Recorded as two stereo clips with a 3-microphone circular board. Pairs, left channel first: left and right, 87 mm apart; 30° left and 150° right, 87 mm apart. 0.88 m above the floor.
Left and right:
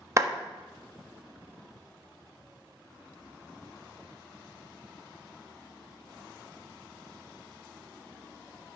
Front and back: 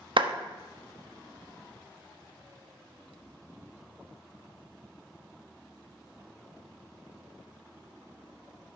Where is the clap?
145° right, 1.1 m.